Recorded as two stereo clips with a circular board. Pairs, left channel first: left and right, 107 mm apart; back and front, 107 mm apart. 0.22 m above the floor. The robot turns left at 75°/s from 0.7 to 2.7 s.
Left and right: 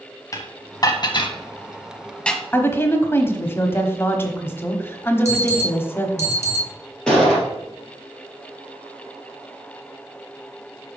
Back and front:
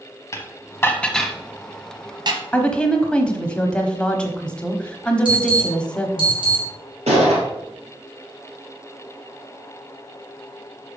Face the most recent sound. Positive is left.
turn(degrees=5)